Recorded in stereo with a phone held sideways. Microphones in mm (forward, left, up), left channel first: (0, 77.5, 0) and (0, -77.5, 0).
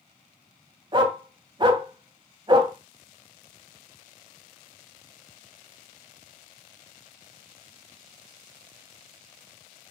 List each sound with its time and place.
0.9 s a dog barking: 30° right (ahead or behind), 1.4 m